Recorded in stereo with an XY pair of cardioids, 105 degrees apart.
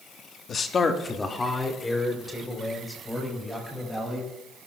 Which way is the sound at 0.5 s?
55° left.